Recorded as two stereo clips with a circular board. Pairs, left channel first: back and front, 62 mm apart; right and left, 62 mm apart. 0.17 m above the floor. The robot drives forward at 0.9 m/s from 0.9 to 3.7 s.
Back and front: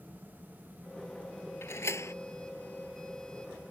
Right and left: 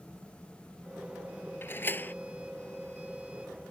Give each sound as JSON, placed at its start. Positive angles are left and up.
{"t": 1.6, "sound": "a door slam", "azimuth_deg": -140}